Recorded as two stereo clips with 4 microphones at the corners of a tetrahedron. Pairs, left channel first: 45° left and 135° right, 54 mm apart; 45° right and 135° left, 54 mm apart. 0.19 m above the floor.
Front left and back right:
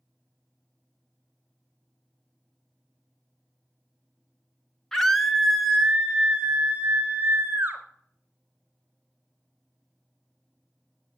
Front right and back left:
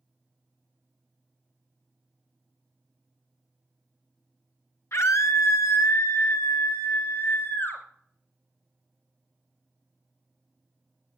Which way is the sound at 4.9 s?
35° right.